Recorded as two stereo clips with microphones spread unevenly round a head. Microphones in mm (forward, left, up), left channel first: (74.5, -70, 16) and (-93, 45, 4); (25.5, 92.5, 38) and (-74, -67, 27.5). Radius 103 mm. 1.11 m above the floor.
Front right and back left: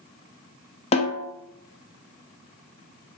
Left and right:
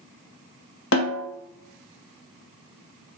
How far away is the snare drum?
About 0.6 m.